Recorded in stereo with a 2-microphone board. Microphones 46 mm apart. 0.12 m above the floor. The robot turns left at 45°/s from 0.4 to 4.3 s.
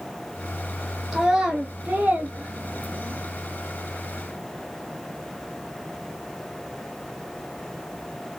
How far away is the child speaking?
About 1.0 m.